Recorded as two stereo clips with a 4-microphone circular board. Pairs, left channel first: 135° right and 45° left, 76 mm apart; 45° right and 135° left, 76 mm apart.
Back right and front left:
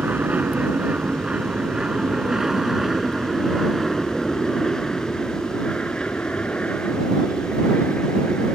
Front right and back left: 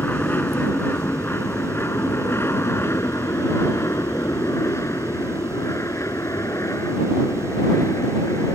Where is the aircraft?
5° right; by 8.6 s 75° right.